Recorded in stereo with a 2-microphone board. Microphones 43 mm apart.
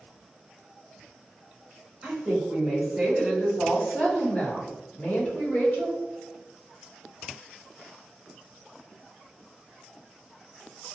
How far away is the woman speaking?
About 1.3 m.